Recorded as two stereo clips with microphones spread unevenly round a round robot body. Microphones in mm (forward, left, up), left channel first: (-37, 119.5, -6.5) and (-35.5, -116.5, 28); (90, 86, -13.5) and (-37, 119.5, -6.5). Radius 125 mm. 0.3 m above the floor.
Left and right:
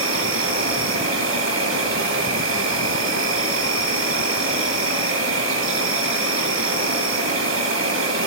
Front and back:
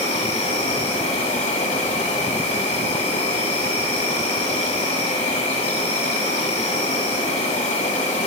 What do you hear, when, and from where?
0.0 s an insect: 55° right, 2 m